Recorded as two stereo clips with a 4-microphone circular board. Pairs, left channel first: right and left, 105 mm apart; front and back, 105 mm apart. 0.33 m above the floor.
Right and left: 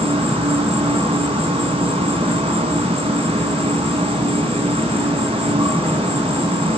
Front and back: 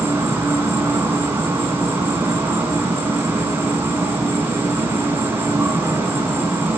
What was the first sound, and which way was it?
An insect, 110° left.